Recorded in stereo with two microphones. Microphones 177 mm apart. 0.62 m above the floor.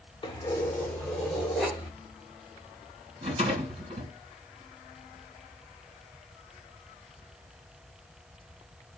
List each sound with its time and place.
0.2 s keys jangling: 30° left (ahead or behind), 0.8 m; by 1.9 s centre (ahead or behind), 1.9 m
3.2 s a rattle: 30° right (ahead or behind), 2.5 m